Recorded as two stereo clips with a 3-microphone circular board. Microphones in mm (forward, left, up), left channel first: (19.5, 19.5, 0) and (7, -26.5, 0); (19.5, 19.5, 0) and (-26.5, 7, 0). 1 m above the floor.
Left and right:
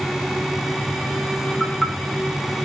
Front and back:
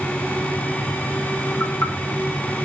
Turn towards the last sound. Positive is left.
turn(degrees=-20)